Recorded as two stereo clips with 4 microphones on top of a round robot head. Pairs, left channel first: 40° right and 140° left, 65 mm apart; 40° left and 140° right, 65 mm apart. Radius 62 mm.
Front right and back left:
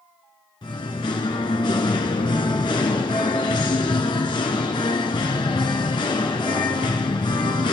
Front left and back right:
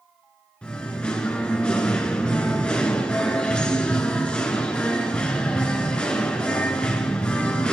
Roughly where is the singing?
Ahead right.